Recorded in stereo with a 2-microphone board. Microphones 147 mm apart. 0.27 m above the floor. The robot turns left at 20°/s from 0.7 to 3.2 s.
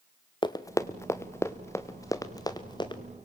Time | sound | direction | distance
0.4 | running footsteps | 30° left (ahead or behind) | 1.0 m